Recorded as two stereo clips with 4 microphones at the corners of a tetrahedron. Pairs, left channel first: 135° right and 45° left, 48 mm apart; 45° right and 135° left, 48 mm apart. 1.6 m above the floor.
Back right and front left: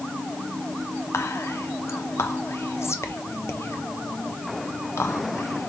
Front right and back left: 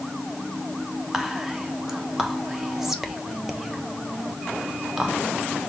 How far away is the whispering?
About 0.9 m.